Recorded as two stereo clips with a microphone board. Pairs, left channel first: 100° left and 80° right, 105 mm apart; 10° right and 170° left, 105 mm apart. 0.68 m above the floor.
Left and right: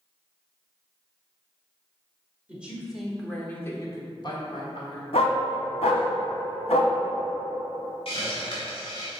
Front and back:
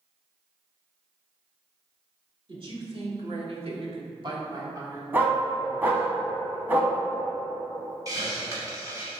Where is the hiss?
120° left, 2 m.